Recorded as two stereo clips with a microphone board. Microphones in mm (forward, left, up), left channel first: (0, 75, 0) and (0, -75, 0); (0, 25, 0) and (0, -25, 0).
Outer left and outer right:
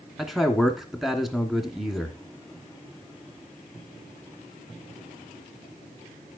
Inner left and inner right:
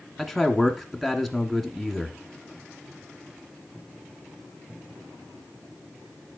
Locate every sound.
0.2 s a man speaking: centre (ahead or behind), 1.4 m